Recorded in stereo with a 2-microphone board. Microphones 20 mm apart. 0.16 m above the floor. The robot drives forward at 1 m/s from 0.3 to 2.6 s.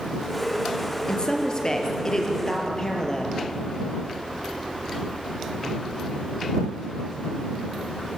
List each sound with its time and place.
1.1 s a woman speaking: 40° left (ahead or behind), 3.5 m; by 3.4 s 30° left (ahead or behind), 4.5 m